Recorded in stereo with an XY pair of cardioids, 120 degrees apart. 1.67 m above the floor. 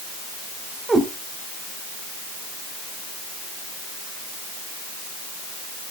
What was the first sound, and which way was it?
A cat meowing, 20° right.